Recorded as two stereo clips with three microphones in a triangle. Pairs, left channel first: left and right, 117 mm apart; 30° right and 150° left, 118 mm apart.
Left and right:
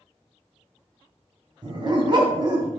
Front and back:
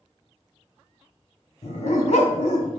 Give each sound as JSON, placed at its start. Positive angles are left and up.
{"t": 1.6, "sound": "a dog barking", "azimuth_deg": -40, "distance_m": 1.5}